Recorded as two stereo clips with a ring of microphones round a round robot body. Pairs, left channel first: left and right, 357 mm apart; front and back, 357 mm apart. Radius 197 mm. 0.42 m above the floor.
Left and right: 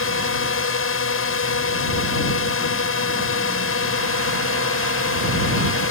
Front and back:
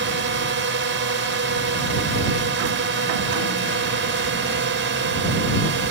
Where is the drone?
130° left.